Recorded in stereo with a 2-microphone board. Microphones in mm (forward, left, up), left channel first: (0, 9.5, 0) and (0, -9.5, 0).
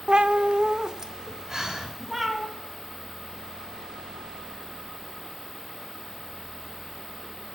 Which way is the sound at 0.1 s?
55° right (ahead or behind).